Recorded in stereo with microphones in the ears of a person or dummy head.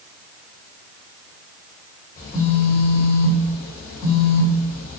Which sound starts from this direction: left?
A phone buzzing, at 2.2 s.